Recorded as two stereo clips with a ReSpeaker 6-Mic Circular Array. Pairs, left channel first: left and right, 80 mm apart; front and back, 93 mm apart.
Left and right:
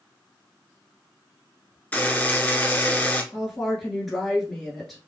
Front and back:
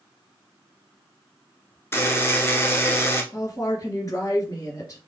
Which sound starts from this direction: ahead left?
A buzzer, at 1.9 s.